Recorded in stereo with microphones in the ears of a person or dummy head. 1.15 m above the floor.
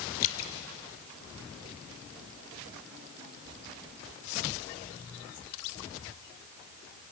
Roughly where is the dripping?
Left.